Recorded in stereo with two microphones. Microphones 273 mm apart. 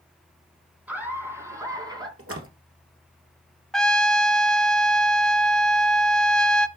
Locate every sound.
0.9 s laughter: 5° right (ahead or behind), 3 m; by 2.1 s 15° right (ahead or behind), 2.5 m
2.2 s a splash: 55° right (ahead or behind), 1.8 m
3.7 s a trumpet: centre (ahead or behind), 0.6 m